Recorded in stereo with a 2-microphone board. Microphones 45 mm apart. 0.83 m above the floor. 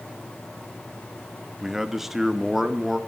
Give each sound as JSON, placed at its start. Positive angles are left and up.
{"t": 1.6, "sound": "a man speaking", "side_deg": -5, "distance_m": 1.0}